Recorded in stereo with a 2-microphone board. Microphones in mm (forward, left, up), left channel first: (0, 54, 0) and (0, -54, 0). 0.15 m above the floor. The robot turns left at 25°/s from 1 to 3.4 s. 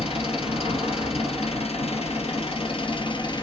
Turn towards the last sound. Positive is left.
turn(degrees=45)